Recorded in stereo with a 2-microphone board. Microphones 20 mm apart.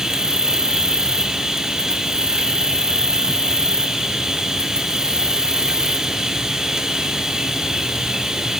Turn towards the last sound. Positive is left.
turn(degrees=-30)  # may be behind; listen again after turning